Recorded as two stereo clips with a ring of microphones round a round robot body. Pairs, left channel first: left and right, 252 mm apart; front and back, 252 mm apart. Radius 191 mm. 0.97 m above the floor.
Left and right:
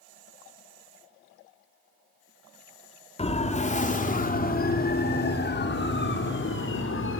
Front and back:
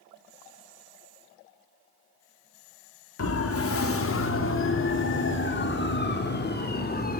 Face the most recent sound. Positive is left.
turn(degrees=55)